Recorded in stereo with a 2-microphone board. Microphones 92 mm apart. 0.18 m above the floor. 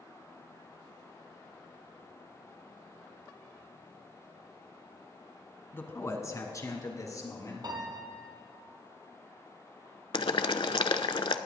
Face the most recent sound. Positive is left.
turn(degrees=70)  # may be behind; listen again after turning